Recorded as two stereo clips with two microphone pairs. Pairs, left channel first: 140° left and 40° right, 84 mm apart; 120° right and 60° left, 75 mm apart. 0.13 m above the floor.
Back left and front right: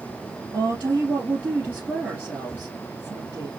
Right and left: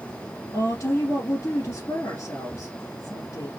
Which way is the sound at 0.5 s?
105° right.